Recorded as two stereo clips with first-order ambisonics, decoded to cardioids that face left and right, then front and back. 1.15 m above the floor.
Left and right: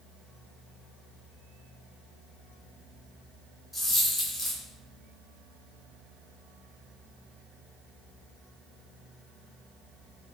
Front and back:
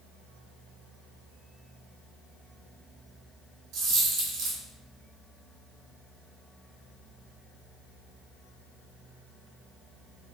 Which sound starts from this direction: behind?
A dropped coin, at 3.7 s.